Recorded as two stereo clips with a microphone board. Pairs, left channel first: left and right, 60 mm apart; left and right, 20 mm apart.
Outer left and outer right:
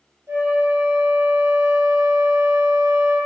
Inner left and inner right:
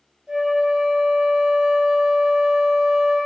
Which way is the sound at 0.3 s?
45° right (ahead or behind).